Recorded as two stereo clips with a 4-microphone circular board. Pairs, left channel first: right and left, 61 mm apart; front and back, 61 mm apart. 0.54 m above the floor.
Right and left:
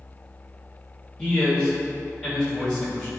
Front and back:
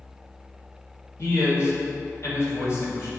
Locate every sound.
1.2 s a man speaking: 20° right, 1.9 m